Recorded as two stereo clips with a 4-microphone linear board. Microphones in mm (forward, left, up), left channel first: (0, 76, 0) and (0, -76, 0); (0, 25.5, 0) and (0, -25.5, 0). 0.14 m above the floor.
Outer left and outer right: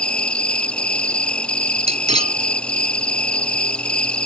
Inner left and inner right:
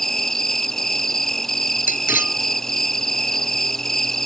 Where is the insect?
5° left (ahead or behind).